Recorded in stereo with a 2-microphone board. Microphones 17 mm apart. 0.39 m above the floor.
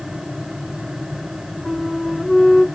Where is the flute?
55° left (ahead or behind), 3 m.